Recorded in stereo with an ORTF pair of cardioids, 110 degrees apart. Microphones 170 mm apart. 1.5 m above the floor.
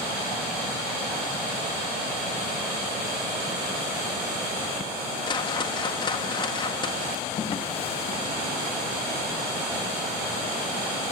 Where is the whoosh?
25° left, 1.8 m.